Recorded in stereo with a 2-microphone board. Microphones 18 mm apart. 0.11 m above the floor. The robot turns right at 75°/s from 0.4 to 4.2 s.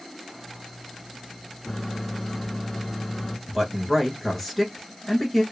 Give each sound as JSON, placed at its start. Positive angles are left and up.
{"t": 1.6, "sound": "a microwave", "side_deg": 0, "distance_m": 0.9}
{"t": 3.5, "sound": "a man speaking", "side_deg": -10, "distance_m": 1.2}